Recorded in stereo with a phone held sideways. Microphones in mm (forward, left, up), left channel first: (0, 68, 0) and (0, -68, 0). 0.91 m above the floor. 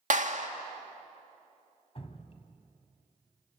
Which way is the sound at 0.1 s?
65° right (ahead or behind).